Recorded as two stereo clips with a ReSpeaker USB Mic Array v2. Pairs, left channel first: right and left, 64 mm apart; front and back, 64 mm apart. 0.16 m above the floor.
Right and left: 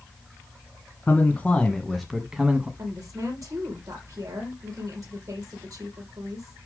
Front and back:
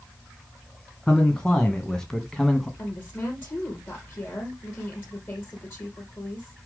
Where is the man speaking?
65° right, 1.7 m; by 2.7 s 75° left, 1.6 m.